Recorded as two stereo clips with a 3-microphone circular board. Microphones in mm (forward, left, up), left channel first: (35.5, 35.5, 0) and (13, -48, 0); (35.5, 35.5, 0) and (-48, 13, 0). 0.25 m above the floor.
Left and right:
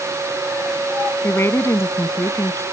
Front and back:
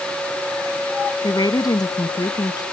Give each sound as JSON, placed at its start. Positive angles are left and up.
{"t": 1.2, "sound": "a woman speaking", "azimuth_deg": 25}